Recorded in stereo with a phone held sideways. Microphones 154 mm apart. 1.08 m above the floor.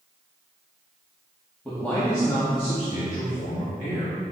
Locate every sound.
1.6 s a man speaking: 5° left (ahead or behind), 1.9 m; by 4.2 s 80° left, 2 m